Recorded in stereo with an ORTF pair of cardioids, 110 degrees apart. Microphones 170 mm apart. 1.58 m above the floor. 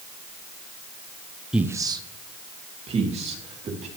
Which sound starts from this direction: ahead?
A man speaking, at 1.5 s.